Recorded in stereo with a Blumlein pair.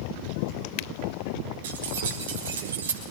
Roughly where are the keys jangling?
Ahead right.